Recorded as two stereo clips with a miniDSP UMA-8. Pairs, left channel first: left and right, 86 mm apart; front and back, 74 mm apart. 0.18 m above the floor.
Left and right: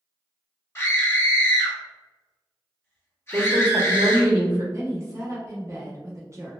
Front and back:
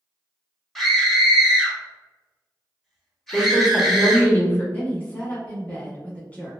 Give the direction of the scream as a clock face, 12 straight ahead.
9 o'clock.